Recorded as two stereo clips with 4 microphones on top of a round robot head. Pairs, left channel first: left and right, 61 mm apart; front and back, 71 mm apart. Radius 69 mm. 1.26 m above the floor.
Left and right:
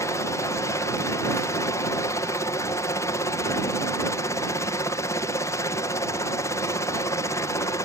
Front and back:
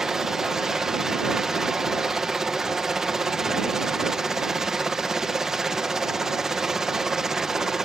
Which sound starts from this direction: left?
A helicopter, at 0.0 s.